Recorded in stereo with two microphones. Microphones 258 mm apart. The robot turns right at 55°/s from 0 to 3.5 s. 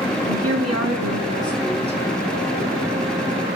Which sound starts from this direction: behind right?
A woman speaking, at 0.2 s.